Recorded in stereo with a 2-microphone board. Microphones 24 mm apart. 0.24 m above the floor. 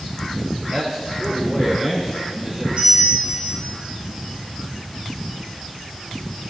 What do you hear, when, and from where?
0.7 s a man speaking: 45° right (ahead or behind), 4 m; by 2.7 s 20° right (ahead or behind), 5.5 m
2.8 s a bell: 50° right (ahead or behind), 5.5 m